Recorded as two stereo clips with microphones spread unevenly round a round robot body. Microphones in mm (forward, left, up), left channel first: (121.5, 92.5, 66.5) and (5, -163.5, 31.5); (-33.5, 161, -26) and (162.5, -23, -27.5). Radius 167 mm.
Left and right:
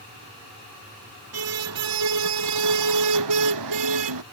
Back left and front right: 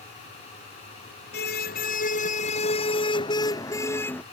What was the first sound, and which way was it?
A car horn, 160° right.